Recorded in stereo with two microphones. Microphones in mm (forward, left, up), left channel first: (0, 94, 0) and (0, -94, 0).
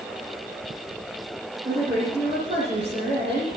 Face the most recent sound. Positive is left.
turn(degrees=-25)  # may be behind; listen again after turning